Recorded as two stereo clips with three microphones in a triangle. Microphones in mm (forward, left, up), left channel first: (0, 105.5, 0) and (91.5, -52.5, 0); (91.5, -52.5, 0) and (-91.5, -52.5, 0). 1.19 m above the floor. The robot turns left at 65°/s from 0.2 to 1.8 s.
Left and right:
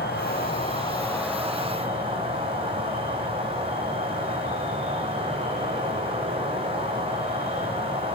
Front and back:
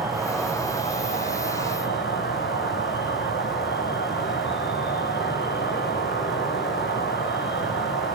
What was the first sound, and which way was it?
An insect, 100° left.